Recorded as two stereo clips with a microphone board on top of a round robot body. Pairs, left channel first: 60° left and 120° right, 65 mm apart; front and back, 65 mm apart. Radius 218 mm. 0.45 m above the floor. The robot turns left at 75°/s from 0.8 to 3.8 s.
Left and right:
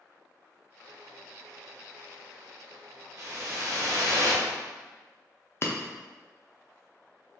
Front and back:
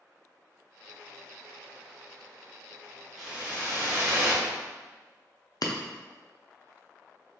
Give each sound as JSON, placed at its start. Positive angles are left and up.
{"t": 3.2, "sound": "a whoosh", "azimuth_deg": -90, "distance_m": 1.4}
{"t": 5.6, "sound": "breaking glass", "azimuth_deg": 10, "distance_m": 0.6}